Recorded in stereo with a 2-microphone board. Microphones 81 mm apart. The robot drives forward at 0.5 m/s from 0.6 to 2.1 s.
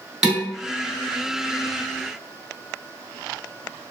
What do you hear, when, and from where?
0.2 s dishes clattering: 5° right (ahead or behind), 1.1 m